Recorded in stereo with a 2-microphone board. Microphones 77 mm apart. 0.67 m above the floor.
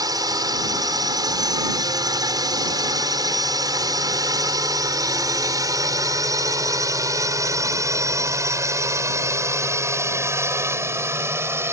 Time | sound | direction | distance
0.0 | a drone | 60° right (ahead or behind) | ?